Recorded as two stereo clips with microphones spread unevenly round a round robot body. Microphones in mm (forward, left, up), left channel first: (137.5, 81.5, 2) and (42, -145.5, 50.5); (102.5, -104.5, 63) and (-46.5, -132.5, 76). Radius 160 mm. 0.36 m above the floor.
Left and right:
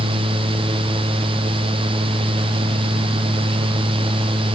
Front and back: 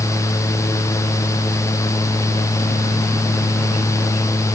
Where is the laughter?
No laughter in this recording.